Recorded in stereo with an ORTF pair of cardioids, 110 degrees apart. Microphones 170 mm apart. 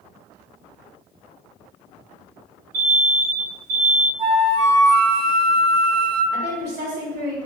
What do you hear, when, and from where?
2.7 s an alarm: 55° right, 1.0 m
4.2 s a flute: 35° right, 0.6 m
6.3 s a woman speaking: 65° right, 1.2 m